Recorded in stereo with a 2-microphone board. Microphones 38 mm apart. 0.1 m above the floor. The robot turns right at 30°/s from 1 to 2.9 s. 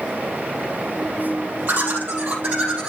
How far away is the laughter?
About 3.5 m.